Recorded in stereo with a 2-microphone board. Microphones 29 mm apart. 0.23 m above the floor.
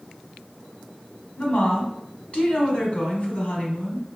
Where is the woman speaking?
40° left (ahead or behind), 1.6 m.